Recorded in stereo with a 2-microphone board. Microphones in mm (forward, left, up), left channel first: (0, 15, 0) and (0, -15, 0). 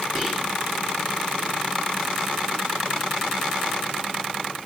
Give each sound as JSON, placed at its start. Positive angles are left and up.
{"t": 0.1, "sound": "whispering", "side_deg": -20, "distance_m": 1.4}